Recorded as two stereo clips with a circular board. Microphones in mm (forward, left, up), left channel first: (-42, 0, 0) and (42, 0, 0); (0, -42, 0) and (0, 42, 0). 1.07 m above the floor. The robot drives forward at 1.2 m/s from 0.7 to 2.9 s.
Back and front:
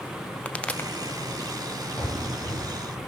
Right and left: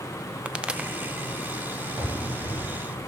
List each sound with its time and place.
0.5 s a pop: 140° left, 0.7 m; by 0.9 s 160° left, 0.8 m
2.0 s running footsteps: 120° left, 9.5 m; by 3.0 s 130° left, 10 m